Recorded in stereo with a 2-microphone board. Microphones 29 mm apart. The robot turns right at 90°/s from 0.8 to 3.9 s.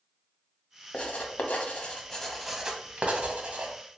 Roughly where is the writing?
Left.